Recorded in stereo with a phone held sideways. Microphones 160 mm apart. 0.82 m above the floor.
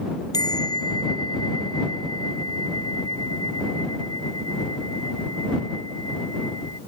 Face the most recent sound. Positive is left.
turn(degrees=25)  # may be behind; listen again after turning